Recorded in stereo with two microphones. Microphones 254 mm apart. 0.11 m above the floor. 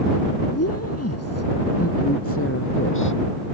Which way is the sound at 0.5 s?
70° left (ahead or behind).